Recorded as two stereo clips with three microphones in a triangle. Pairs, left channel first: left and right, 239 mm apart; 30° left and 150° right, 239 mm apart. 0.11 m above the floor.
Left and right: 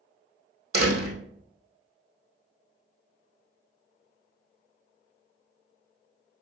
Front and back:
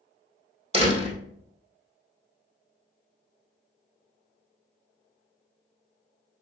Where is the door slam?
85° right, 2.5 m.